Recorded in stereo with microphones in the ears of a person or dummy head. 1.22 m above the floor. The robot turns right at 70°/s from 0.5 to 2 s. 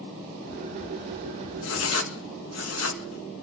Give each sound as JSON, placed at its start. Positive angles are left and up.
{"t": 1.6, "sound": "writing", "side_deg": 70, "distance_m": 1.8}